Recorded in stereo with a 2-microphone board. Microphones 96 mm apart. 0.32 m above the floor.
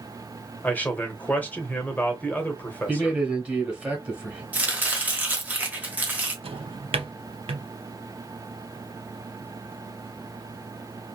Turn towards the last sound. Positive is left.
turn(degrees=-80)